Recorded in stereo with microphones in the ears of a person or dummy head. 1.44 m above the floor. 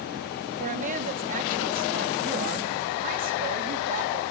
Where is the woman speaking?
40° right (ahead or behind), 3 m.